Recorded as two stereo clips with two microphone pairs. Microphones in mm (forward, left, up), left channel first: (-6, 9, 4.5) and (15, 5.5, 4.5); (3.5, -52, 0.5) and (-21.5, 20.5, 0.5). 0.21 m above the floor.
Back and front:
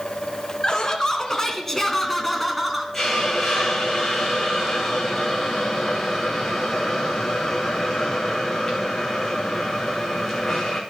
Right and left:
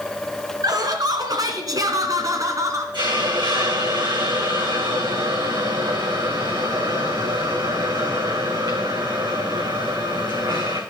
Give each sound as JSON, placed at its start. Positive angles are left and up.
{"t": 0.6, "sound": "laughter", "azimuth_deg": 125, "distance_m": 2.0}
{"t": 2.9, "sound": "a hiss", "azimuth_deg": 95, "distance_m": 2.5}